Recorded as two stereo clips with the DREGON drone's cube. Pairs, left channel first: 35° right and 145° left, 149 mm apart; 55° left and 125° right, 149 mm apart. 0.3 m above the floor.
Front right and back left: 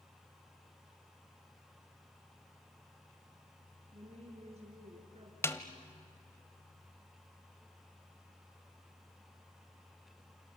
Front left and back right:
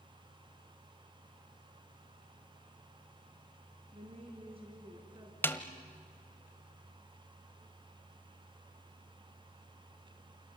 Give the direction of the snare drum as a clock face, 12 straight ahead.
12 o'clock.